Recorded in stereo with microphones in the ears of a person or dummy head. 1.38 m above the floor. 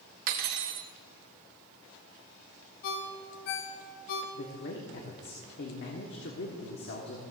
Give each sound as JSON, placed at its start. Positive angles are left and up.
{"t": 0.3, "sound": "cutlery clinking", "side_deg": -45, "distance_m": 1.0}
{"t": 2.8, "sound": "a ringtone", "side_deg": 45, "distance_m": 1.0}
{"t": 4.3, "sound": "a man speaking", "side_deg": 55, "distance_m": 1.3}